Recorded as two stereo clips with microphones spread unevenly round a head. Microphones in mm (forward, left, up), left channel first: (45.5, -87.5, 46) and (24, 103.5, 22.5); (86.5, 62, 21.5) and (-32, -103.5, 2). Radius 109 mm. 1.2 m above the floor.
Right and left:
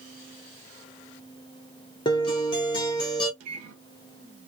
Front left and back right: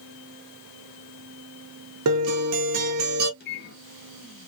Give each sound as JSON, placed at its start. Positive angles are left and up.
{"t": 2.0, "sound": "a guitar", "azimuth_deg": -155, "distance_m": 0.5}
{"t": 3.4, "sound": "a microwave", "azimuth_deg": 95, "distance_m": 0.7}